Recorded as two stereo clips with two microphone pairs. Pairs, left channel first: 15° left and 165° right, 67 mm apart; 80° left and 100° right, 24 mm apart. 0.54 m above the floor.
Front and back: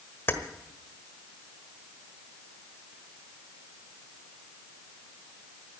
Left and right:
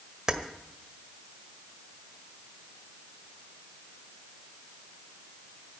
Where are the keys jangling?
45° right, 1.4 m.